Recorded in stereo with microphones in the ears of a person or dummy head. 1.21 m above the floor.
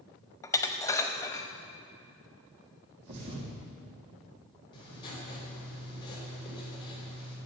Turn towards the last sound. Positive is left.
turn(degrees=25)  # may be behind; listen again after turning